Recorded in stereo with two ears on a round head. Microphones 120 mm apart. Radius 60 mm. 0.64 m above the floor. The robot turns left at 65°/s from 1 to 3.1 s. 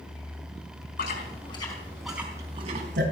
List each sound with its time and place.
1.0 s chewing: 65° left (ahead or behind), 4 m; by 3.0 s 65° right (ahead or behind), 4 m